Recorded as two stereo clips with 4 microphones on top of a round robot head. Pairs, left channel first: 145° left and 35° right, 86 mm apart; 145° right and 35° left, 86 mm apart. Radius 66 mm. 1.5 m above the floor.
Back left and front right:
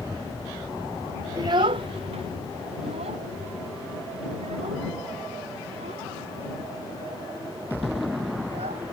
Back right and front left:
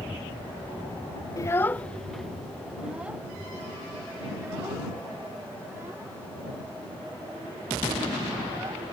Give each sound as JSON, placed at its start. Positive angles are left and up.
{"t": 1.4, "sound": "a child speaking", "azimuth_deg": -90}